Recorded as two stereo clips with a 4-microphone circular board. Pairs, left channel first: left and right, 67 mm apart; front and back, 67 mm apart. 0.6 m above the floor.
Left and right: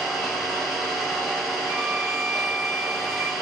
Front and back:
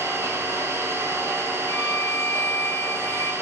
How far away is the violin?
About 0.8 m.